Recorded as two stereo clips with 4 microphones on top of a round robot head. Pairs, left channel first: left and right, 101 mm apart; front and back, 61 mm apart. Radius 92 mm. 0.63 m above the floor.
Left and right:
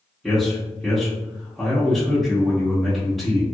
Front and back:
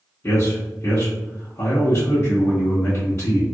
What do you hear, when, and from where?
0.2 s a man speaking: straight ahead, 1.2 m